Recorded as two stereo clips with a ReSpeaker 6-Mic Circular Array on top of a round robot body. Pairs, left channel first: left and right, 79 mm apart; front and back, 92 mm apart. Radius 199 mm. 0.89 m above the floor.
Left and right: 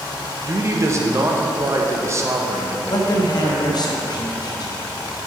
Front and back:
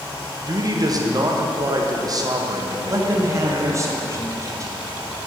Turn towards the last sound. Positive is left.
turn(degrees=125)